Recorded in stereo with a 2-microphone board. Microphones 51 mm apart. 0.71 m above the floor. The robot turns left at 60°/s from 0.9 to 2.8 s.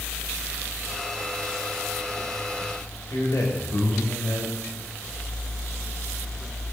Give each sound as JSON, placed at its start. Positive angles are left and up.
{"t": 3.1, "sound": "a man speaking", "side_deg": 75, "distance_m": 2.5}